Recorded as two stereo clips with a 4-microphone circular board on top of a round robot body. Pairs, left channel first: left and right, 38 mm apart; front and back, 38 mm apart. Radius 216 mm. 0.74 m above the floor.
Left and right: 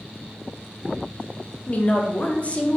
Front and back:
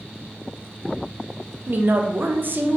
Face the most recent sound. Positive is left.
turn(degrees=145)